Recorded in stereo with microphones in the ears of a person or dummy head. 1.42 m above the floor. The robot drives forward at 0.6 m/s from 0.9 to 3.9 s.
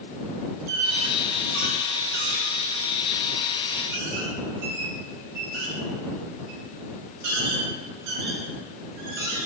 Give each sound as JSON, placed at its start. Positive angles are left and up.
{"t": 0.7, "sound": "a squeak", "side_deg": -40, "distance_m": 1.8}